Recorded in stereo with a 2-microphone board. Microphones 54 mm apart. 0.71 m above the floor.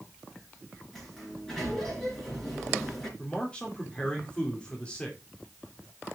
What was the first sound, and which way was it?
A sliding door, 5° left (ahead or behind).